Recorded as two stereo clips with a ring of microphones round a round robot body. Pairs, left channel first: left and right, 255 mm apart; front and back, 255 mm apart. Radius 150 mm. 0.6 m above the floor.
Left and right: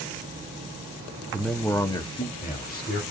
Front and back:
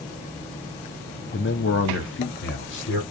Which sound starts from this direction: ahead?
A man speaking, at 1.3 s.